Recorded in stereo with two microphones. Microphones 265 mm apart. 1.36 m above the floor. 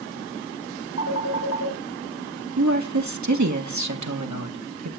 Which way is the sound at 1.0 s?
65° left (ahead or behind).